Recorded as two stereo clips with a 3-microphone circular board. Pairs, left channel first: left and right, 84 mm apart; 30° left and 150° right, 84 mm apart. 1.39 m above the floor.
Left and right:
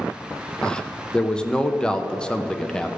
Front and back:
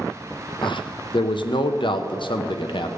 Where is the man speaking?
10° left, 0.8 m.